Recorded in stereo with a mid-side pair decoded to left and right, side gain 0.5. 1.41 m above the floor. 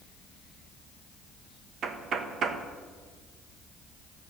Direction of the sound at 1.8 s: 60° right.